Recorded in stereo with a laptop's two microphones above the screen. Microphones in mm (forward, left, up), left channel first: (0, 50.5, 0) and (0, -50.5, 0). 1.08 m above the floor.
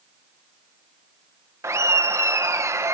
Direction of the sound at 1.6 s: 30° right (ahead or behind).